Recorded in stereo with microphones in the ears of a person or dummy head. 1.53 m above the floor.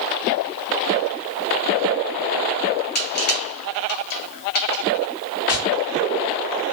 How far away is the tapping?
About 1.5 m.